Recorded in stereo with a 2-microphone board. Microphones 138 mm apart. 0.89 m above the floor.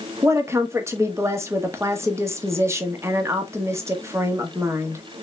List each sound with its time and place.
0.2 s a woman speaking: 20° right (ahead or behind), 1.0 m